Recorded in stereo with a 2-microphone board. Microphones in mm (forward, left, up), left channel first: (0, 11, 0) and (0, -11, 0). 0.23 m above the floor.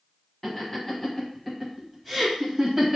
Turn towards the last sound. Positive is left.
turn(degrees=-20)  # may be behind; listen again after turning